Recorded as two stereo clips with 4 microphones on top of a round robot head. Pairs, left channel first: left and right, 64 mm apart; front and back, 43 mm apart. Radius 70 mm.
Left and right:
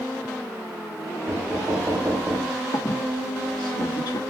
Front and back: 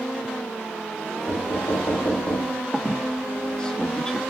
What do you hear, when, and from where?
1.3 s knocking: 20° right, 5.5 m
2.7 s a squeak: 75° left, 1.4 m